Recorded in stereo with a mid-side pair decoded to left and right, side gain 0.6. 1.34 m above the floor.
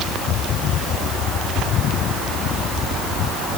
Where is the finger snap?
No finger snap in this recording.